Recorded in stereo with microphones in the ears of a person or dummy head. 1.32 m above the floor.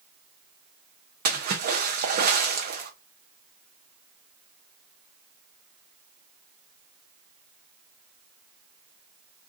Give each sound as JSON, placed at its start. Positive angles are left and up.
{"t": 1.2, "sound": "a splash", "side_deg": -45, "distance_m": 0.6}